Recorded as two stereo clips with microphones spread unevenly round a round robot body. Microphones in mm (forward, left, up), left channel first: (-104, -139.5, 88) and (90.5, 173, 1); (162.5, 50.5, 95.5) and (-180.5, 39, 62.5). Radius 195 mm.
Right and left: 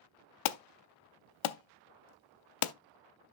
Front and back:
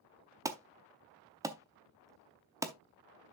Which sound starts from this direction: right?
An alarm, at 0.5 s.